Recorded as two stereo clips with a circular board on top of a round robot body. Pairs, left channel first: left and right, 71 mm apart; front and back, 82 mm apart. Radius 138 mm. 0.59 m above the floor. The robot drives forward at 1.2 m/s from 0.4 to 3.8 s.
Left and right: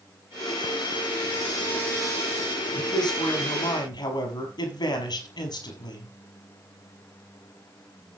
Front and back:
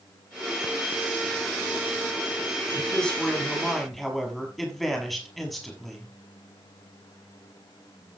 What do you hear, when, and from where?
2.8 s a man speaking: 80° left, 6.5 m; by 6.1 s 90° left, 6 m